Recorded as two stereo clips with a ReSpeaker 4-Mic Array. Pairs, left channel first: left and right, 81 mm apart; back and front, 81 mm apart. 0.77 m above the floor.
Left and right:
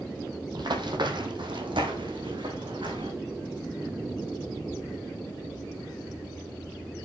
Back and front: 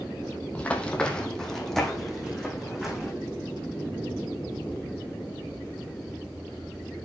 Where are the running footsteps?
110° right, 1.8 m; by 3.1 s 85° right, 3.5 m.